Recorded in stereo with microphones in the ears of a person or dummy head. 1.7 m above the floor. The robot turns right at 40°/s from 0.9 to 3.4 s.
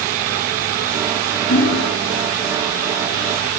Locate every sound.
1.5 s hammering: 45° left (ahead or behind), 8.5 m; by 1.9 s 60° left (ahead or behind), 8.5 m